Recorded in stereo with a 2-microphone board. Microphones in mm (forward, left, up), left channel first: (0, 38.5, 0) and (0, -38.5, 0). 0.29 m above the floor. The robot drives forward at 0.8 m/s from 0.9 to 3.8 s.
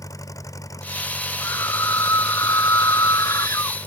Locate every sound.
0.0 s an engine running: 45° left (ahead or behind); by 3.9 s 35° left (ahead or behind)
1.4 s a scream: 40° left (ahead or behind); by 3.8 s 45° left (ahead or behind)